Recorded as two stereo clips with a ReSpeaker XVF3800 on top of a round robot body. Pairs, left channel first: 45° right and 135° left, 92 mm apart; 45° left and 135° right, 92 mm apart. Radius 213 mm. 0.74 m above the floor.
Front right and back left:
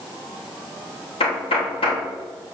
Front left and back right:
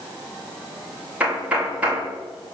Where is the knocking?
60° right, 3.5 m.